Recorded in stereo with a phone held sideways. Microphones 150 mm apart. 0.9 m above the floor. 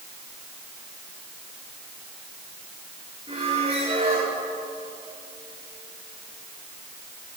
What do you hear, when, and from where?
3.3 s a squeak: 35° right (ahead or behind), 10 m